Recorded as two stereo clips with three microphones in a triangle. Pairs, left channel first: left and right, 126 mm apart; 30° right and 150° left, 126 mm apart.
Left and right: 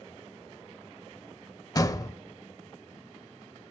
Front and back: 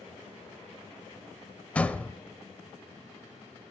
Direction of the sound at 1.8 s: 45° left.